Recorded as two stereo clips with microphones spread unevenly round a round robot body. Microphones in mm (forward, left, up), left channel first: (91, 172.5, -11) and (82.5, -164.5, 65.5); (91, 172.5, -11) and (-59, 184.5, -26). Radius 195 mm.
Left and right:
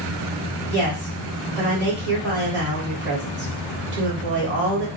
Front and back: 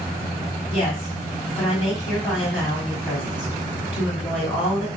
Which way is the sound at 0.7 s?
95° right.